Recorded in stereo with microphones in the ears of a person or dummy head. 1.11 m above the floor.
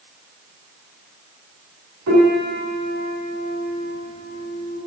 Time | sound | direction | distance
2.1 | a piano | 85° right | 6.5 m